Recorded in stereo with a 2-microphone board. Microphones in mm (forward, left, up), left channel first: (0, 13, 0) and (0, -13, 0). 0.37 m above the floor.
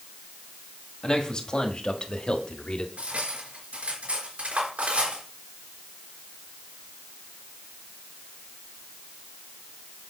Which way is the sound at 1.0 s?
30° left (ahead or behind).